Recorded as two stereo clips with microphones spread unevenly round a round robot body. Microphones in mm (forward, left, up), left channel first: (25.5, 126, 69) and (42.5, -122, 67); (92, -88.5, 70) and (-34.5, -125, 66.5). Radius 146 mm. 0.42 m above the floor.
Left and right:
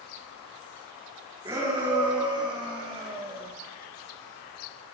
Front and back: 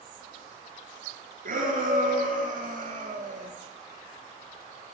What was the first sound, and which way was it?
A shout, 160° right.